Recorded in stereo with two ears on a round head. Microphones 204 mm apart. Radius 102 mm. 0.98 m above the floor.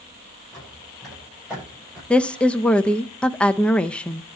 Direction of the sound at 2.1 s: 5° left (ahead or behind).